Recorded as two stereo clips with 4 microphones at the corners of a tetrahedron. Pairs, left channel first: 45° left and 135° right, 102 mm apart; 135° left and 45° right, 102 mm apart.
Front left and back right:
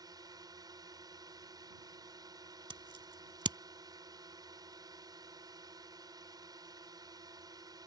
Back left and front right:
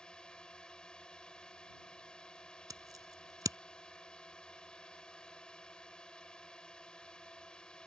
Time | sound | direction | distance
0.0 | a drone | 150° right | ?
2.7 | scissors | 95° right | ?